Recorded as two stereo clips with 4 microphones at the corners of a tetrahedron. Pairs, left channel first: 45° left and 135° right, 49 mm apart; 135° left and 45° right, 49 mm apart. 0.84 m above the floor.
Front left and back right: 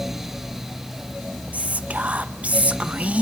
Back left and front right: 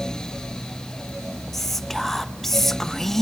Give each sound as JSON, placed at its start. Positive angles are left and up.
{"t": 1.5, "sound": "whispering", "azimuth_deg": -150, "distance_m": 0.7}